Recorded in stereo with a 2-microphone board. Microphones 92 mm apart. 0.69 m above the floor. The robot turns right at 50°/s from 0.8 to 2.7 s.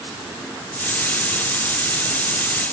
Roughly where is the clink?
I don't hear a clink.